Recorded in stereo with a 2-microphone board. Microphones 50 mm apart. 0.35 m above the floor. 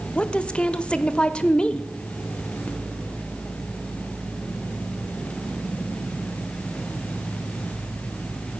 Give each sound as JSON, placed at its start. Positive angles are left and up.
{"t": 0.1, "sound": "a woman speaking", "side_deg": 20, "distance_m": 0.9}